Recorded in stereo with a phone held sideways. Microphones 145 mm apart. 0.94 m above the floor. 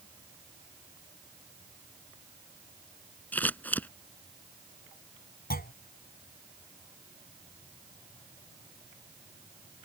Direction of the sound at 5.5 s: 80° left.